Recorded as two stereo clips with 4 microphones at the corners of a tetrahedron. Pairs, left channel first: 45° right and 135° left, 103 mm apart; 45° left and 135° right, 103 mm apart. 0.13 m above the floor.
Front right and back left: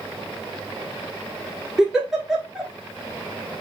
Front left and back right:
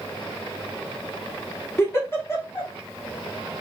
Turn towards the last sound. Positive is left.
turn(degrees=55)